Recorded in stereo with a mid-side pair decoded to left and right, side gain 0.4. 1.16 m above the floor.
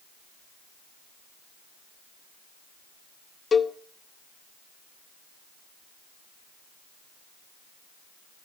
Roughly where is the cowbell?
Ahead left.